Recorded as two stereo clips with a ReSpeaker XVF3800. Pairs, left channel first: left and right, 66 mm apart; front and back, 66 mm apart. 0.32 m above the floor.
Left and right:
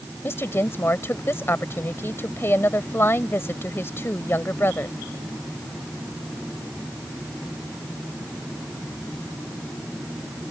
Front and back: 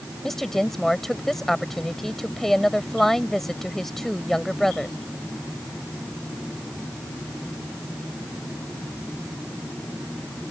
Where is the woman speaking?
85° left.